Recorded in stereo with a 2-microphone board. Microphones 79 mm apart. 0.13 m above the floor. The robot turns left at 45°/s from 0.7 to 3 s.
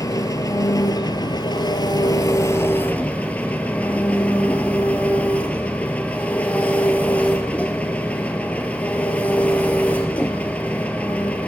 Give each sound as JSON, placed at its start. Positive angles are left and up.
{"t": 0.0, "sound": "an engine running", "azimuth_deg": 125, "distance_m": 0.7}